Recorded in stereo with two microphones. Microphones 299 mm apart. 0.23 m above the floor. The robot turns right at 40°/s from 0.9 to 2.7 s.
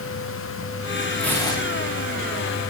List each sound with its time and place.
1.2 s tearing paper: centre (ahead or behind), 9 m; by 2.0 s 30° left (ahead or behind), 9 m